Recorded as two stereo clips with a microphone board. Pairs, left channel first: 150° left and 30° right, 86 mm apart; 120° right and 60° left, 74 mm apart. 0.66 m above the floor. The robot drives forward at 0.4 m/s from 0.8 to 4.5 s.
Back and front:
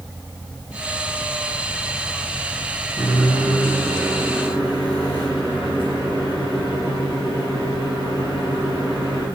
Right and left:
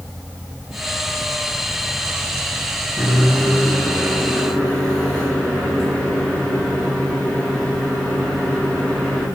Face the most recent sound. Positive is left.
turn(degrees=155)